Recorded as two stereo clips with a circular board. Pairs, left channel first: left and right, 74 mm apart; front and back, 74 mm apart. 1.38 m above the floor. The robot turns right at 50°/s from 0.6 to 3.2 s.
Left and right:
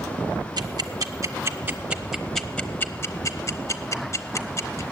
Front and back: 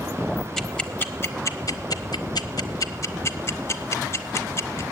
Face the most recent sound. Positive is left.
turn(degrees=50)